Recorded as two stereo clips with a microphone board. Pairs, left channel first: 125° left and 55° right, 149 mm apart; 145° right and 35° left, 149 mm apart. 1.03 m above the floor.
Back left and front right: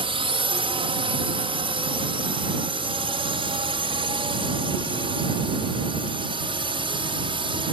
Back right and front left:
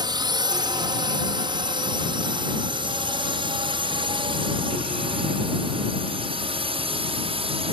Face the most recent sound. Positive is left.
turn(degrees=-10)